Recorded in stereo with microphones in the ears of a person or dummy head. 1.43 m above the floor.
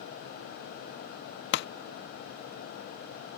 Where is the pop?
60° left (ahead or behind).